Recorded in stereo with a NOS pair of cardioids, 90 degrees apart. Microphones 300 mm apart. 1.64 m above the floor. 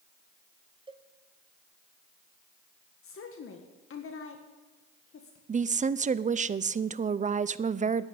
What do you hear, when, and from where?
0.9 s a cowbell: 15° right, 1.0 m
3.0 s a woman speaking: 45° left, 1.7 m
5.5 s a woman speaking: 25° right, 0.6 m